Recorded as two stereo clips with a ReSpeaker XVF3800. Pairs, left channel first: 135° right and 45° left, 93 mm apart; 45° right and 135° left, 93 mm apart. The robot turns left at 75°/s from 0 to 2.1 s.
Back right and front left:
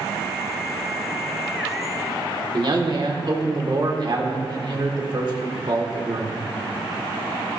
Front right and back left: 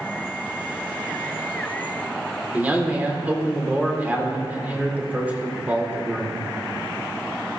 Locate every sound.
2.5 s a man speaking: 65° left, 1.9 m